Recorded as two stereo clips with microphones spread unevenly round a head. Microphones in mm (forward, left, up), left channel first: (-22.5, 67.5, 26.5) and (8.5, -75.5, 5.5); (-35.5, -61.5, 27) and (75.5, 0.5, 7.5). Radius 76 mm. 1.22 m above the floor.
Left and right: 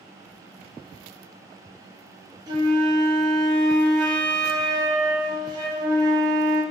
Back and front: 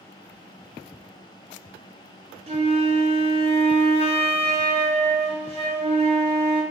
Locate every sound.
2.5 s a flute: 10° right, 1.7 m